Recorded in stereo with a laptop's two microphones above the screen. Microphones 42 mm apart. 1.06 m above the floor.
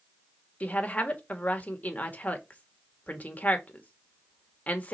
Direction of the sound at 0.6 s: 35° left (ahead or behind).